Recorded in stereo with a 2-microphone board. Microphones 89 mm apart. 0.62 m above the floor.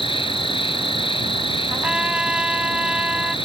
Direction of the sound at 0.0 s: 85° left.